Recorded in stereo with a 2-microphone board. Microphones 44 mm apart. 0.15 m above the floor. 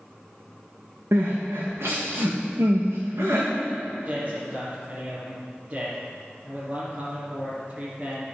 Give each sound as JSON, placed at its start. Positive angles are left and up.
{"t": 1.1, "sound": "crying", "side_deg": -80, "distance_m": 2.5}
{"t": 4.0, "sound": "a man speaking", "side_deg": -30, "distance_m": 2.5}